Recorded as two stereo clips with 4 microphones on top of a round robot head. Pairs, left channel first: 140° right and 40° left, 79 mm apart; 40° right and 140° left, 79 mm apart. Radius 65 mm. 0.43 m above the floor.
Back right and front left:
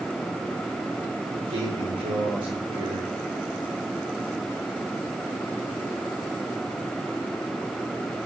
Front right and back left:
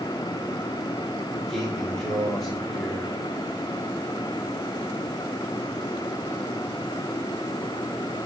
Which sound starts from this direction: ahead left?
A man speaking, at 1.3 s.